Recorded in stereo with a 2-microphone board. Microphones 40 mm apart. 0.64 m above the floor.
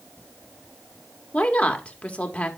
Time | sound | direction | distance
1.3 | a woman speaking | 35° left (ahead or behind) | 1.3 m